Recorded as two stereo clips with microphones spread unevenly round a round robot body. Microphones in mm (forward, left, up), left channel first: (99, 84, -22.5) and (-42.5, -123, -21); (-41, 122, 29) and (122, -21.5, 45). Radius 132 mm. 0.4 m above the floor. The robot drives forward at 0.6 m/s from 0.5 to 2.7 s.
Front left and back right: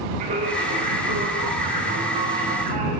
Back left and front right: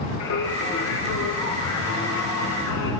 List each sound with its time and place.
0.2 s singing: 175° left, 8 m